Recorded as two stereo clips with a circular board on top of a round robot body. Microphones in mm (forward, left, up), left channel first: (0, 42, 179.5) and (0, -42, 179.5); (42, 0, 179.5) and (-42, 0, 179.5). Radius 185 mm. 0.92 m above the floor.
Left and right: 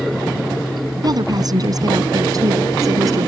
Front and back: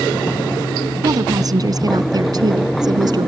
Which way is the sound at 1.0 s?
135° right.